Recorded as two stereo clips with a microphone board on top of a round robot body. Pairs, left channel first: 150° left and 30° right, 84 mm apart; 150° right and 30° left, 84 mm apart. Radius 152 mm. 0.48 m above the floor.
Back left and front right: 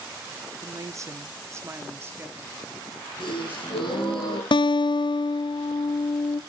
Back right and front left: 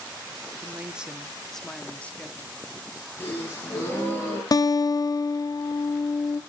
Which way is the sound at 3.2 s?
145° left.